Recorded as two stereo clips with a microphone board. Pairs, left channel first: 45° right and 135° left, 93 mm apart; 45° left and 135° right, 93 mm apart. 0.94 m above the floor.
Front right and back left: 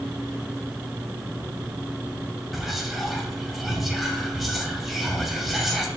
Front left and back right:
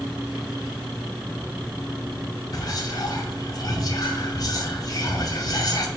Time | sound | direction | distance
2.5 | whispering | 45° left | 0.6 m